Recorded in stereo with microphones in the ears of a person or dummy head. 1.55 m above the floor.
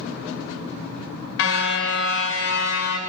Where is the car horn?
65° left (ahead or behind), 2.5 m; by 3.0 s 55° left (ahead or behind), 2 m.